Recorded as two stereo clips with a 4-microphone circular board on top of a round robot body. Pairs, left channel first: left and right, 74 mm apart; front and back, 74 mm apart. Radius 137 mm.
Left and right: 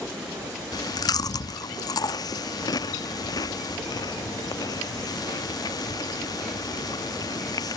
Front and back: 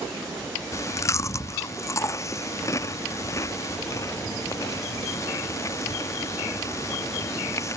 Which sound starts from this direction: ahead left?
Chewing, at 0.7 s.